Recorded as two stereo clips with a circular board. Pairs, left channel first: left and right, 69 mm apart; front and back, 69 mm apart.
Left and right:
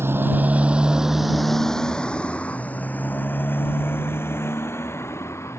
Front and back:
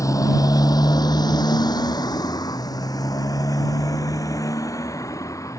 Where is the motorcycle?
35° right; by 5.6 s 40° left.